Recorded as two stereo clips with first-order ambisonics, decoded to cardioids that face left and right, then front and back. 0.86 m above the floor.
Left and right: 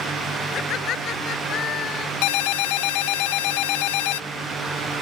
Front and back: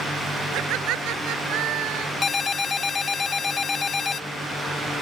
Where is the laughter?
145° left; by 2.1 s 140° left.